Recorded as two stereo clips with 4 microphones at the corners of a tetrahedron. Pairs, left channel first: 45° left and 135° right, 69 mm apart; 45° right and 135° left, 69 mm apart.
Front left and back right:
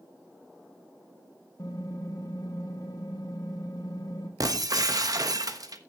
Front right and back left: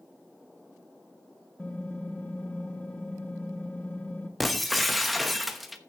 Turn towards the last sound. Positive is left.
turn(degrees=-135)